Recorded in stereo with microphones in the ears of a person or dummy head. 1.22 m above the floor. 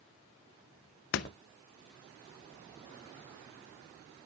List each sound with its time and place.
1.1 s a door slam: 55° left (ahead or behind), 0.6 m